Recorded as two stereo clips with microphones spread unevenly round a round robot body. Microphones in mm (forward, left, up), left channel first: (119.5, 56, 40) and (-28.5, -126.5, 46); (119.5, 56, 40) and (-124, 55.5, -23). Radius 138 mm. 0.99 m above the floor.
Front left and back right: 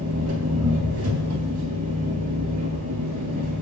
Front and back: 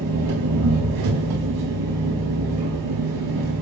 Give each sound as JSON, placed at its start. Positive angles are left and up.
{"t": 0.0, "sound": "an engine running", "azimuth_deg": -170, "distance_m": 4.0}